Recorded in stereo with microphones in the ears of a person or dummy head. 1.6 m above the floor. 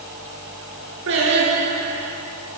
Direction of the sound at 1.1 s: 70° right (ahead or behind).